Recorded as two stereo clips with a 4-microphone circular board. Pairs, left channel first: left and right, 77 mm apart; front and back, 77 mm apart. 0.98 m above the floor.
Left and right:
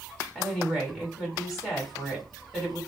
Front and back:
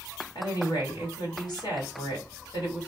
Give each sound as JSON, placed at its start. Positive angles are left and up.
{"t": 0.3, "sound": "a woman speaking", "azimuth_deg": 5, "distance_m": 3.0}